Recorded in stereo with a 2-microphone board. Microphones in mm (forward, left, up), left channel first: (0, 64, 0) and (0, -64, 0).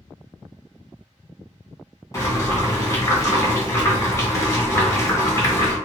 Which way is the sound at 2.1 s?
25° left (ahead or behind).